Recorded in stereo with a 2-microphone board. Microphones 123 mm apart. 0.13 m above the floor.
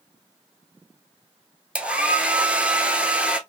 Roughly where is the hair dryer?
Centre.